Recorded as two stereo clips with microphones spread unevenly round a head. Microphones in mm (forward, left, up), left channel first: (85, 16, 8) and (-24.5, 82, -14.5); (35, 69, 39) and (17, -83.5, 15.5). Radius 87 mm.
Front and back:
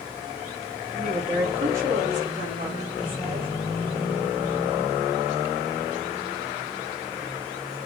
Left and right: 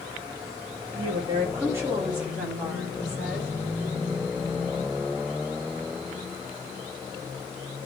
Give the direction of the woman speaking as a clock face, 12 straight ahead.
5 o'clock.